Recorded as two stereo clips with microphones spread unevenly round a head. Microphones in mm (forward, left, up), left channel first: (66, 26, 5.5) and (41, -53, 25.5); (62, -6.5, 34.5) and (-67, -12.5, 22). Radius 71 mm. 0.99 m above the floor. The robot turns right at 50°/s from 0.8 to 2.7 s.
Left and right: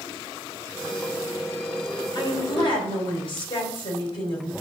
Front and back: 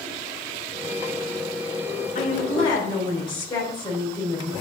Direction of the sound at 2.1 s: 35° left.